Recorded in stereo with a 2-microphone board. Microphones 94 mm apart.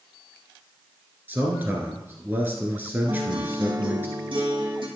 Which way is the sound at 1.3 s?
20° right (ahead or behind).